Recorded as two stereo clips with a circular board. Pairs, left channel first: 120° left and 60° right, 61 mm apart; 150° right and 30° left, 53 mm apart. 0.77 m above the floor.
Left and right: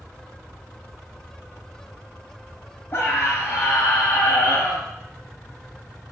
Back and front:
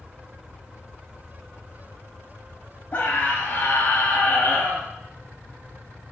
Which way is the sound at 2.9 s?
165° left.